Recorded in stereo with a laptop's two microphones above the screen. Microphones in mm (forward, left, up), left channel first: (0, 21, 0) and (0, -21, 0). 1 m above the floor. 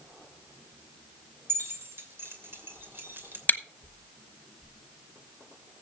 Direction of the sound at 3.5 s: 45° left (ahead or behind).